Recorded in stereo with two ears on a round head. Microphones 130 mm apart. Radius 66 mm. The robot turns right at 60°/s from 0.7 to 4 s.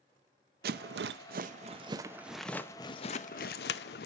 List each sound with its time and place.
0.6 s a rattle: 75° right (ahead or behind), 0.5 m; by 4.1 s 80° left, 0.5 m